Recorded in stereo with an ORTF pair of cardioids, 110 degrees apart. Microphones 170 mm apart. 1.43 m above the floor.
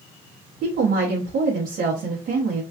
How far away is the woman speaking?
About 0.8 m.